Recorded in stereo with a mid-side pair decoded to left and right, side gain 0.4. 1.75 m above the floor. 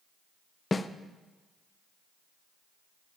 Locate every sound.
0.7 s a snare drum: 30° left, 0.6 m